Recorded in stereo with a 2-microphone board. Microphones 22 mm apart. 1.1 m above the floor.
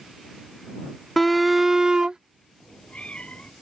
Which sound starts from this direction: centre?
A shout, at 1.2 s.